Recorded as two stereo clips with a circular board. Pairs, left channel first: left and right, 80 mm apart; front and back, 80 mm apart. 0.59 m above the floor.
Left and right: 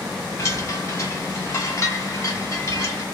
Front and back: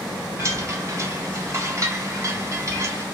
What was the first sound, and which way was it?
A chime, 135° left.